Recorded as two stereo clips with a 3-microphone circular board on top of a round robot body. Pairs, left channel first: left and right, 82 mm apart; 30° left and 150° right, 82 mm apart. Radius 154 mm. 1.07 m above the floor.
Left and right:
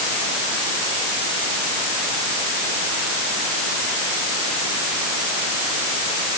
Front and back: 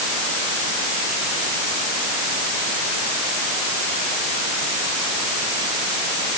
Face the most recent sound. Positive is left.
No sound to turn to.